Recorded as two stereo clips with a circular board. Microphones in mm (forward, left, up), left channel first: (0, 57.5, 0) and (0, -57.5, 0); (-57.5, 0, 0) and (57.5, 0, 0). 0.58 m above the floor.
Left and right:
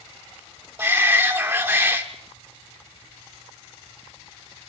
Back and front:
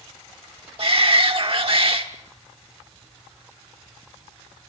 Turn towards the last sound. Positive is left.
turn(degrees=-25)